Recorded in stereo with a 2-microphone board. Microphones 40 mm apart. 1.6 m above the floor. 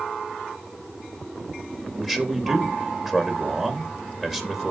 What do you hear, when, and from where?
2.0 s a man speaking: 10° right (ahead or behind), 3.5 m